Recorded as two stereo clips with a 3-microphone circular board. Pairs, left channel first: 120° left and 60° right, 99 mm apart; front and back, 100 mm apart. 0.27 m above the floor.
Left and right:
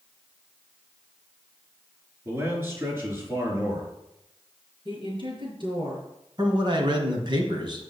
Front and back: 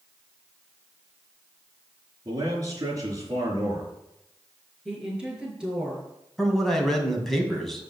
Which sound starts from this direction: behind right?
A man speaking, at 2.2 s.